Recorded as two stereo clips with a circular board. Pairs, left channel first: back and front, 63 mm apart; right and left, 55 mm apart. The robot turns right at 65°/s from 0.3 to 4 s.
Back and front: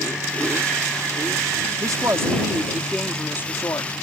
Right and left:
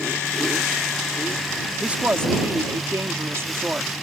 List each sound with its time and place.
1.8 s a woman speaking: 20° left; by 3.9 s 160° left